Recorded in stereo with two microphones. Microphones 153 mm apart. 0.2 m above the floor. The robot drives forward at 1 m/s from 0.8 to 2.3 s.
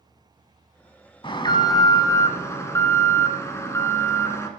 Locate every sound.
1.2 s an alarm: 35° left (ahead or behind), 1.0 m; by 4.5 s 20° left (ahead or behind), 1.6 m